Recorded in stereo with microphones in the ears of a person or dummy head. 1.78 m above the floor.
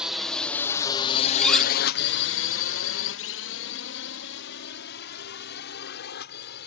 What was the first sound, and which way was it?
A drone, 5° right (ahead or behind).